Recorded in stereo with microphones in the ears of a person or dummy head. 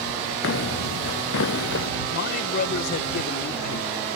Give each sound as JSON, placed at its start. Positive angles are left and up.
{"t": 0.4, "sound": "footsteps", "side_deg": 65}
{"t": 2.1, "sound": "a man speaking", "side_deg": 55}